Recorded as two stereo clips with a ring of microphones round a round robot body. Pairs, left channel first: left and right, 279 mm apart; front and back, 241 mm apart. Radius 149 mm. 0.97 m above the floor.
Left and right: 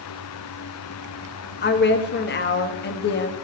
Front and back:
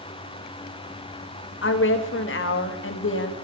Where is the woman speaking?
35° left, 1.4 m.